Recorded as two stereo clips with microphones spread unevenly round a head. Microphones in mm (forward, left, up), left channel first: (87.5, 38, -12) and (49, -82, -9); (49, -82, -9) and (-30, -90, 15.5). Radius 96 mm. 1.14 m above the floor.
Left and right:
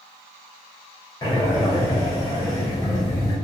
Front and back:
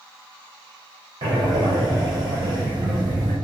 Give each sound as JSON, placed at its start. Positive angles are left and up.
{"t": 1.2, "sound": "breathing", "azimuth_deg": 135, "distance_m": 0.5}